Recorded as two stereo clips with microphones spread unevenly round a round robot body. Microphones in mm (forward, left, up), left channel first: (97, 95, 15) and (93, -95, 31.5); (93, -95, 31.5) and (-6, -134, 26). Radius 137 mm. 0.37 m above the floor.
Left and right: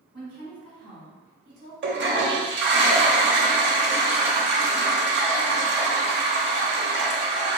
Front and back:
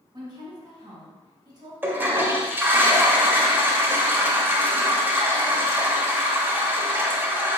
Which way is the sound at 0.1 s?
130° right.